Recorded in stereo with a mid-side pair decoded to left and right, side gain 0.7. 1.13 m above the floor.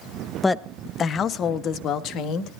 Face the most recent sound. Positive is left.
turn(degrees=55)